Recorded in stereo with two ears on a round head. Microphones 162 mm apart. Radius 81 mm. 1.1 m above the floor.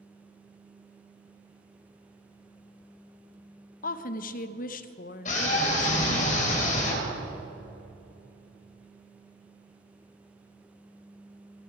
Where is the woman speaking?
45° left (ahead or behind), 0.7 m.